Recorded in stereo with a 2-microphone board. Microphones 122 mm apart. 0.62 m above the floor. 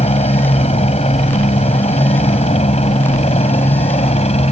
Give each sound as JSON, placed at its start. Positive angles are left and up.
{"t": 0.0, "sound": "a helicopter", "side_deg": 60}